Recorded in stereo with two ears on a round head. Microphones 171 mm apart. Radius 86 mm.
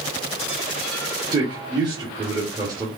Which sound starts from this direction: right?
A man speaking, at 1.3 s.